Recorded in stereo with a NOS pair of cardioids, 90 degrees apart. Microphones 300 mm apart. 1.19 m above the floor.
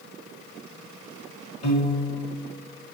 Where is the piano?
25° left, 1.2 m.